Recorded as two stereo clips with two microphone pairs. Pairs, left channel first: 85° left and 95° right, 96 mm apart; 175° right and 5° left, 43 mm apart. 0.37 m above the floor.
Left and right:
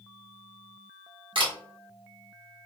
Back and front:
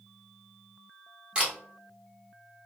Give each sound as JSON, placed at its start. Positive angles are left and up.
{"t": 1.4, "sound": "a camera shutter", "azimuth_deg": -60, "distance_m": 1.5}